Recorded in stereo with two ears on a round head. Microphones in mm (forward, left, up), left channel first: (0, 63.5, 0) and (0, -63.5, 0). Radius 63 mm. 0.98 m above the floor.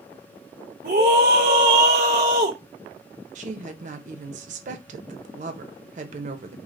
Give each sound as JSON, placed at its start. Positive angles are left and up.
{"t": 0.8, "sound": "a scream", "side_deg": -70, "distance_m": 1.0}
{"t": 3.4, "sound": "a woman speaking", "side_deg": -55, "distance_m": 0.7}